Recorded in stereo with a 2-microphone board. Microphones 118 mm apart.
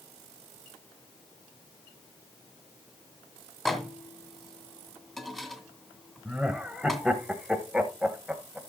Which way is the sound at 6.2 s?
5° right (ahead or behind).